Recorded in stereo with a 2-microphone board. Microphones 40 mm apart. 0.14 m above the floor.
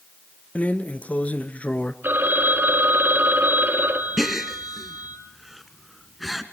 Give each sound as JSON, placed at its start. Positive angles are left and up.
{"t": 0.6, "sound": "a drawer", "side_deg": 35, "distance_m": 0.9}
{"t": 2.0, "sound": "a phone ringing", "side_deg": -55, "distance_m": 2.5}
{"t": 4.2, "sound": "a gasp", "side_deg": -5, "distance_m": 1.4}